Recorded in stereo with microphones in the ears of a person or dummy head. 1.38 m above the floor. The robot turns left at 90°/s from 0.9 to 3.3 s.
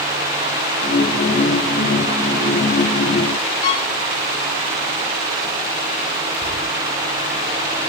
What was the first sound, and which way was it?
A violin, 55° left (ahead or behind).